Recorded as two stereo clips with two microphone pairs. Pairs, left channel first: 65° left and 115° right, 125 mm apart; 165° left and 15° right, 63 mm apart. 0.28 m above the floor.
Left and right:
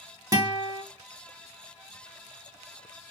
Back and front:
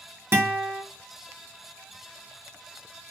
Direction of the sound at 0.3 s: 60° right.